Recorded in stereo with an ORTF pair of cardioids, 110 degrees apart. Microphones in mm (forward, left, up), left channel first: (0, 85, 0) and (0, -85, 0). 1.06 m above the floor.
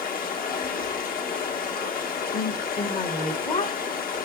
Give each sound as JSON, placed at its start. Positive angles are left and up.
{"t": 0.0, "sound": "running water", "azimuth_deg": 60, "distance_m": 1.7}
{"t": 2.3, "sound": "a woman speaking", "azimuth_deg": 40, "distance_m": 1.3}